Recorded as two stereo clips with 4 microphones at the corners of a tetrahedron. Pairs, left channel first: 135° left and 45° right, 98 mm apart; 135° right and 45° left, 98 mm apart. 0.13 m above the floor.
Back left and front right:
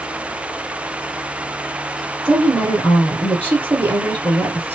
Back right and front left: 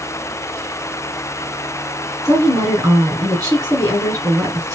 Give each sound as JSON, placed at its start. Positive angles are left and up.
{"t": 2.2, "sound": "a woman speaking", "azimuth_deg": 20, "distance_m": 2.0}